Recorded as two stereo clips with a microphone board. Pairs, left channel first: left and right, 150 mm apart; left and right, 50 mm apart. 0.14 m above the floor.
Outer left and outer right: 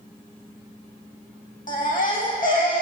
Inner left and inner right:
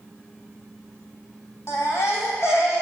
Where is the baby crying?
65° left (ahead or behind), 4 m.